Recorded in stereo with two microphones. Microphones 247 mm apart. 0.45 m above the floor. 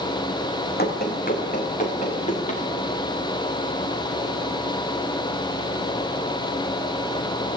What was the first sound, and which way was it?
Running footsteps, 40° left (ahead or behind).